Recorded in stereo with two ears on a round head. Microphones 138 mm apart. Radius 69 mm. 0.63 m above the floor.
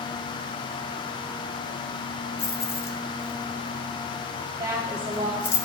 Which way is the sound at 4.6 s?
25° right (ahead or behind).